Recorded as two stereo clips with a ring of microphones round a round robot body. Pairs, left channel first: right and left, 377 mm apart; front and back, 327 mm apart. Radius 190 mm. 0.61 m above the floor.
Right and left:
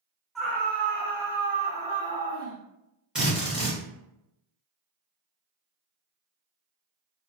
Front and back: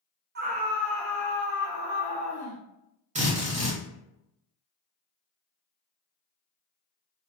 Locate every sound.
0.3 s a scream: straight behind, 0.7 m; by 2.6 s 10° right, 1.3 m
3.1 s a drill: 175° left, 1.0 m